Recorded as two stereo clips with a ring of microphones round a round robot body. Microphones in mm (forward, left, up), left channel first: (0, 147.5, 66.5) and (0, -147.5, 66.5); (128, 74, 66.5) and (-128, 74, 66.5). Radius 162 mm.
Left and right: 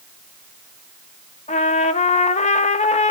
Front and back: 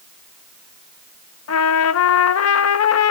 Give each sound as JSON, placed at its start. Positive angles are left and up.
{"t": 1.5, "sound": "a trumpet", "azimuth_deg": 25, "distance_m": 0.8}